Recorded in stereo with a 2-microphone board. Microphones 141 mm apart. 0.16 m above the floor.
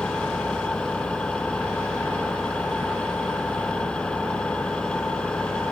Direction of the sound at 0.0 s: 5° left (ahead or behind).